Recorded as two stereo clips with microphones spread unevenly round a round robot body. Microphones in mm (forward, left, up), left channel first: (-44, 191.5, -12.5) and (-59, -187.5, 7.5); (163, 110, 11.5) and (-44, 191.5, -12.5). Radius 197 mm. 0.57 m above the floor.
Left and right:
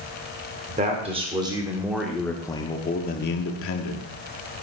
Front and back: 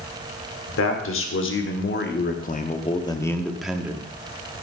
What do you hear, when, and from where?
0.7 s a man speaking: 20° right, 1.9 m; by 4.1 s 95° left, 1.3 m